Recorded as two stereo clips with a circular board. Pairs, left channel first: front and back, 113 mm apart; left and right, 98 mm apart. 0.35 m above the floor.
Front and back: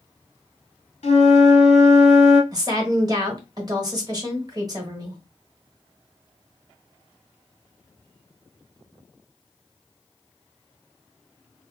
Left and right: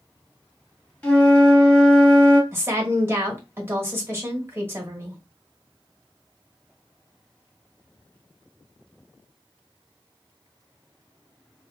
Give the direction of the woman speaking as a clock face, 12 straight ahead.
5 o'clock.